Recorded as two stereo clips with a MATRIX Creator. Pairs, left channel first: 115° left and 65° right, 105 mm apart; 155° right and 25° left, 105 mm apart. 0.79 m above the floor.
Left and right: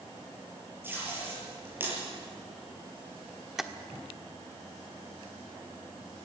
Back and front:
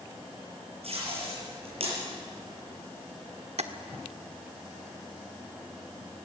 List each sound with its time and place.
0.8 s tape being pulled: straight ahead, 6.5 m
3.6 s tapping: 20° left, 1.0 m